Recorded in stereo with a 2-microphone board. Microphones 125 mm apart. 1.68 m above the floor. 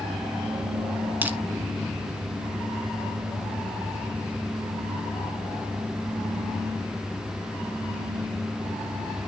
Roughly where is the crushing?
Centre.